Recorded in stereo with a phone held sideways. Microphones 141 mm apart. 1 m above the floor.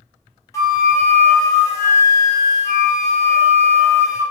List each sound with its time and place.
0.5 s a flute: 20° left (ahead or behind), 0.5 m